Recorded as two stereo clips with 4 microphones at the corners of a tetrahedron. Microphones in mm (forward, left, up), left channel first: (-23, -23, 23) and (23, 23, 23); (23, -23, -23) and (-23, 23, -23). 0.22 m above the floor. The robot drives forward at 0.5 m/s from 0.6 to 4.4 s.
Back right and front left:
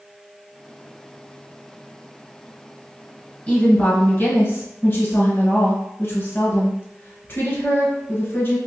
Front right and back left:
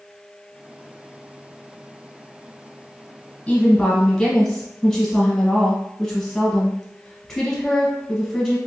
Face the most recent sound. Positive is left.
turn(degrees=-130)